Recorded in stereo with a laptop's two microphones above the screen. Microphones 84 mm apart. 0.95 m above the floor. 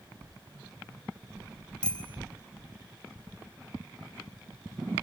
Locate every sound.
1.8 s a bicycle bell: 10° left (ahead or behind), 5 m